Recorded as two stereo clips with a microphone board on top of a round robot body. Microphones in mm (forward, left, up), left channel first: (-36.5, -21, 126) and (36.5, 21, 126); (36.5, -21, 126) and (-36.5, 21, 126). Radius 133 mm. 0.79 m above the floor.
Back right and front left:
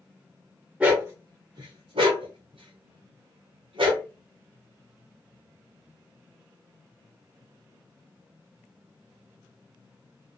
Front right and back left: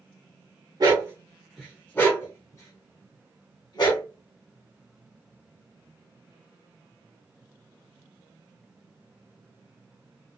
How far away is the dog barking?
About 0.6 m.